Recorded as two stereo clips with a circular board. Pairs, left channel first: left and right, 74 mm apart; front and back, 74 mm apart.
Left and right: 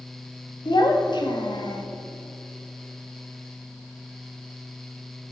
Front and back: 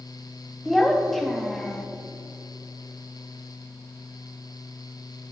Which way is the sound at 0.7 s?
85° left.